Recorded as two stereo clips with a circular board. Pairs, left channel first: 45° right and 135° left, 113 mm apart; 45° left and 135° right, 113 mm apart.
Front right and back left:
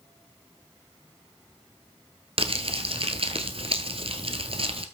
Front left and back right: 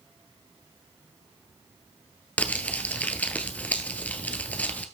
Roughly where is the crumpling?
Behind left.